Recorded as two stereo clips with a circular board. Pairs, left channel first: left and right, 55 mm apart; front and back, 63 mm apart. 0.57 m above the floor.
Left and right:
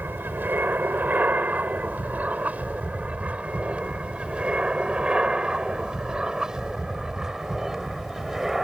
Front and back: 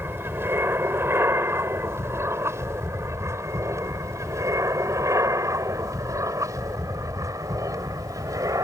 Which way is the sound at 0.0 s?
135° right.